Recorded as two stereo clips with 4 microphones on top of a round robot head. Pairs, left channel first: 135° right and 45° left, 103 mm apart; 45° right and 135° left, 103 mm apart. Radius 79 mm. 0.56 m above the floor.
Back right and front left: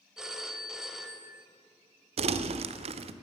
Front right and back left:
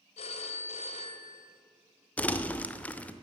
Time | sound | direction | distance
0.2 | a phone ringing | 35° right | 1.5 m
2.2 | crumpling | 30° left | 0.7 m